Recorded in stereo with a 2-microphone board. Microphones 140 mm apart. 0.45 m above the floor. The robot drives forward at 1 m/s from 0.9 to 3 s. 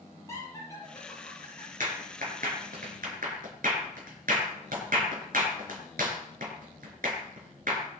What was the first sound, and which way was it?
Laughter, 25° left (ahead or behind).